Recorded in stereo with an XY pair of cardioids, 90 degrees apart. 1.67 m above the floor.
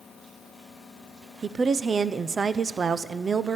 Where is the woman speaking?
45° right, 0.6 m.